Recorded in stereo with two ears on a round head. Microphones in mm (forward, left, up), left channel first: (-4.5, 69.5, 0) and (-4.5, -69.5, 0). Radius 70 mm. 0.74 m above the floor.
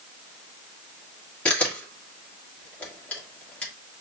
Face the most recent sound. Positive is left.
turn(degrees=10)  # may be behind; listen again after turning